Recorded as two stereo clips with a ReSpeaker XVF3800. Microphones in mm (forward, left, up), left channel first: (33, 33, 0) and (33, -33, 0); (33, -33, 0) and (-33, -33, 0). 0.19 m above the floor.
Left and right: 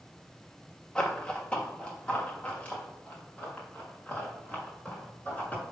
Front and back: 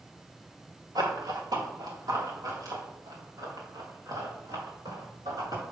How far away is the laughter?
No laughter in this recording.